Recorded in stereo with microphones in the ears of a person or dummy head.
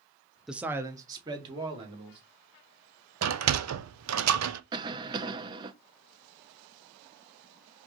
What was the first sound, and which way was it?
A man speaking, 5° right (ahead or behind).